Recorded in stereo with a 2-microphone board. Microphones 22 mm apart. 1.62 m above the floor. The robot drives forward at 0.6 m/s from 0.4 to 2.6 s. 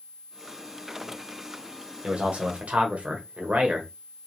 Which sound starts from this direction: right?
A man speaking, at 2.0 s.